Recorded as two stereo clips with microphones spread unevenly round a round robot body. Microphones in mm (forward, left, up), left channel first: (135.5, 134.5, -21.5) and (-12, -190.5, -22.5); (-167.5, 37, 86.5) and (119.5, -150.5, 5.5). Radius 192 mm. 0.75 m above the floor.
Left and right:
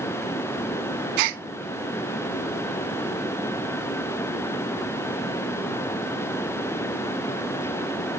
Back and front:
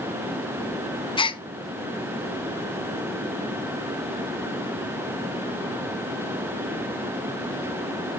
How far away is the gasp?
About 0.6 m.